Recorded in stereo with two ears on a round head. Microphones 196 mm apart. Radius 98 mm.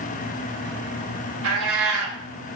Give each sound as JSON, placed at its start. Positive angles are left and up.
{"t": 1.4, "sound": "a cat meowing", "side_deg": -75, "distance_m": 1.2}